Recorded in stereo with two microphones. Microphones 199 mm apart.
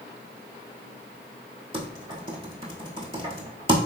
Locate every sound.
1.7 s typing on a keyboard: 25° right (ahead or behind), 0.8 m